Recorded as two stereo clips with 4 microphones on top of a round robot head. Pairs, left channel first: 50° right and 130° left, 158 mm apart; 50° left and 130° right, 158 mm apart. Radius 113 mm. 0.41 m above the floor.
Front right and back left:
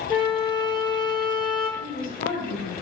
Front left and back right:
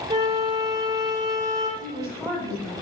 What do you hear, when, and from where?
0.1 s a flute: 80° right, 1.3 m
1.8 s a woman speaking: 25° right, 2.5 m